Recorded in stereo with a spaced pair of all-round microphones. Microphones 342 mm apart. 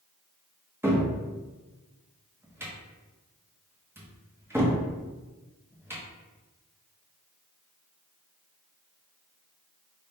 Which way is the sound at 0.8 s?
5° right (ahead or behind).